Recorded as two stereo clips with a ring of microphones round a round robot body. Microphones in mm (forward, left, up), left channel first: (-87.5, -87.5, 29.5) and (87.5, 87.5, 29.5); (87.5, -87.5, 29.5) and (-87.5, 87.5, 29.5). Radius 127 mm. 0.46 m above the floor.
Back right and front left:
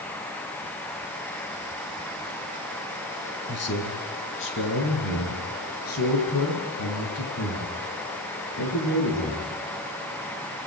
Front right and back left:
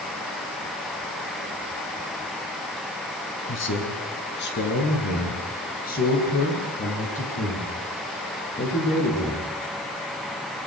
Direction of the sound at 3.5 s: 90° right.